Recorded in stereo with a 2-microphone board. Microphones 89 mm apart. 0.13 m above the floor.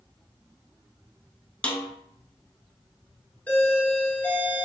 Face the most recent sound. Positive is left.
turn(degrees=15)  # may be behind; listen again after turning